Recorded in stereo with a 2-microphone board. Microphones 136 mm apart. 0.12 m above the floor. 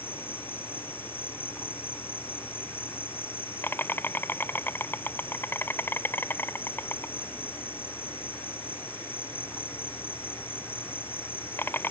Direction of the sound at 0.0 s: 15° left (ahead or behind).